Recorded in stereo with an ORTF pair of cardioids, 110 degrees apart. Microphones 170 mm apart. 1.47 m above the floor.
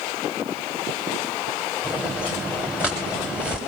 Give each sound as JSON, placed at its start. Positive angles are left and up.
{"t": 1.8, "sound": "footsteps", "azimuth_deg": -5, "distance_m": 7.0}